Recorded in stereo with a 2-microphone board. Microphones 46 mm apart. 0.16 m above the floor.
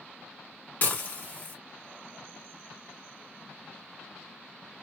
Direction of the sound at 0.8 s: 45° left (ahead or behind).